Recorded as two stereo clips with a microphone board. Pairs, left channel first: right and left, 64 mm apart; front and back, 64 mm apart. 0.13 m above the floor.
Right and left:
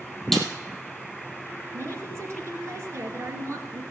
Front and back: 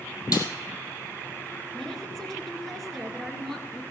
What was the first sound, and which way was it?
A snare drum, 5° right.